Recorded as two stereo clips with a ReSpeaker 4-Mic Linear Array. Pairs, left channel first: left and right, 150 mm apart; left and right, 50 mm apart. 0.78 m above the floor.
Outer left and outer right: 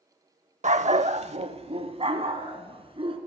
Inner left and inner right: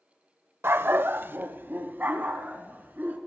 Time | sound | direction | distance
0.6 | a dog barking | 50° right (ahead or behind) | 0.6 m